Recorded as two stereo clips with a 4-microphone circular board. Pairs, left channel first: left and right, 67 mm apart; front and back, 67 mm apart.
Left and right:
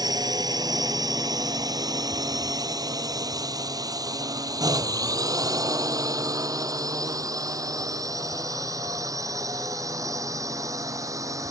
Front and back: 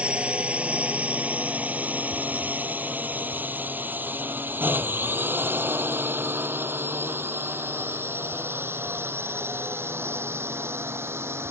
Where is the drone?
105° right; by 11.5 s 125° right.